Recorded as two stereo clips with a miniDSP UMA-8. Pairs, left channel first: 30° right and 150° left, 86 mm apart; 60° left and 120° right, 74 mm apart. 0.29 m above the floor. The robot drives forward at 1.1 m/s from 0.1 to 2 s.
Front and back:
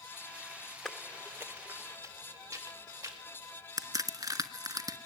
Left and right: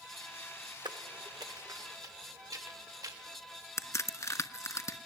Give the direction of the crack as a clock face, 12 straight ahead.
8 o'clock.